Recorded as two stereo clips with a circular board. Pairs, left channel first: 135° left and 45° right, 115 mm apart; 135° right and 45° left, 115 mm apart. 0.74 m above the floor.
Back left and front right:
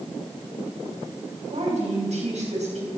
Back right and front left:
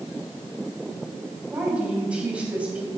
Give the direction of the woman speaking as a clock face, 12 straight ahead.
1 o'clock.